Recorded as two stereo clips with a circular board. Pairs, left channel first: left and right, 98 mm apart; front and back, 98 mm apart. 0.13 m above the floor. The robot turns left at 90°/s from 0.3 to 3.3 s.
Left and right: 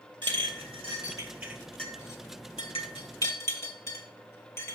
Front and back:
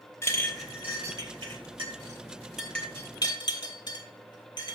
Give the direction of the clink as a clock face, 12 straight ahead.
2 o'clock.